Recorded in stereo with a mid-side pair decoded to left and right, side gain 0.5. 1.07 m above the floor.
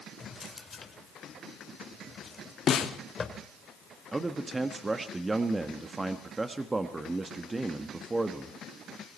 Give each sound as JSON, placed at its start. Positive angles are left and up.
{"t": 0.2, "sound": "a drawer", "azimuth_deg": 30, "distance_m": 2.5}
{"t": 2.7, "sound": "a snare drum", "azimuth_deg": 50, "distance_m": 2.0}
{"t": 4.1, "sound": "a man speaking", "azimuth_deg": -20, "distance_m": 1.4}